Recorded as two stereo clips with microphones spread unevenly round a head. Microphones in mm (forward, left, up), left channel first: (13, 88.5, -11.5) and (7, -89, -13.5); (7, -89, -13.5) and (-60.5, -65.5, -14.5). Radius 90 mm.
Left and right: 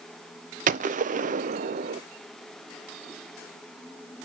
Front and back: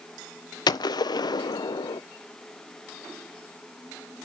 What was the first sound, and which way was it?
A gunshot, 45° right.